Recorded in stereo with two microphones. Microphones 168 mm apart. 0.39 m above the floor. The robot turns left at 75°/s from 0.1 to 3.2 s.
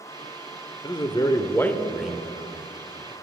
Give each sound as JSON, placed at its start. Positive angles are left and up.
{"t": 0.8, "sound": "a man speaking", "side_deg": 25, "distance_m": 1.0}